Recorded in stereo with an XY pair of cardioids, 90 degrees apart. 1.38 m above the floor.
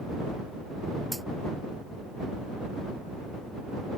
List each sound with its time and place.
1.1 s a dropped coin: 10° right